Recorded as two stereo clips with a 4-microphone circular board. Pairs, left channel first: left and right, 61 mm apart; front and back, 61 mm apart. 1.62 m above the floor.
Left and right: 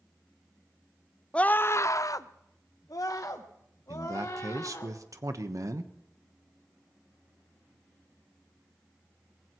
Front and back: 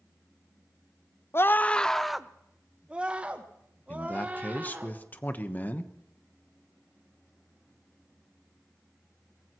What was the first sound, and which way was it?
A scream, 25° left.